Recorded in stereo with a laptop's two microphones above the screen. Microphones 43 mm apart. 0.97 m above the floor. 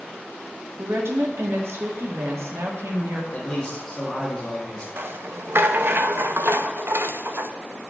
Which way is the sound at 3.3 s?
15° left (ahead or behind).